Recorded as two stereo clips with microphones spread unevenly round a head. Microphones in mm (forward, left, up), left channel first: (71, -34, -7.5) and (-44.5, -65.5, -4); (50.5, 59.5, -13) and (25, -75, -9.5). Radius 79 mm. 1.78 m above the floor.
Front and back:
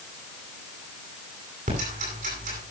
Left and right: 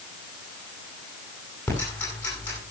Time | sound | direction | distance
1.7 | ticking | 160° left | 10 m